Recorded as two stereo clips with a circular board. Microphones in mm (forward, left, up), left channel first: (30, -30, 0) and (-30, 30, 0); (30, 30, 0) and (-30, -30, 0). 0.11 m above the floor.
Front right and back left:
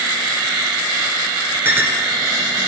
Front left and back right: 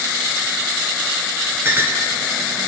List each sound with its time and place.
1.6 s a clink: straight behind, 1.3 m